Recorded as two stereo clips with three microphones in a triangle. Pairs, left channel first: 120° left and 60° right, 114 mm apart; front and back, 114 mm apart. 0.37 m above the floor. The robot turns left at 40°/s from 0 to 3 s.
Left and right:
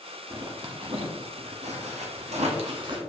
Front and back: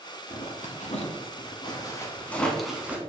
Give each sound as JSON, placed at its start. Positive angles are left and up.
{"t": 0.3, "sound": "a zipper", "azimuth_deg": 5, "distance_m": 0.9}